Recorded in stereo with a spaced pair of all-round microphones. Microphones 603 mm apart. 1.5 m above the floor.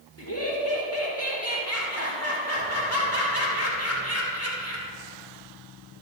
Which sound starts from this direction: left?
Laughter, at 0.2 s.